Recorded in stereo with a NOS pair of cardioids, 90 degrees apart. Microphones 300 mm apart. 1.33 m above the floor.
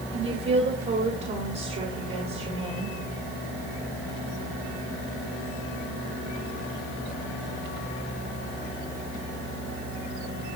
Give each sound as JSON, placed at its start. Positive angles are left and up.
{"t": 0.1, "sound": "a woman speaking", "azimuth_deg": -35, "distance_m": 5.0}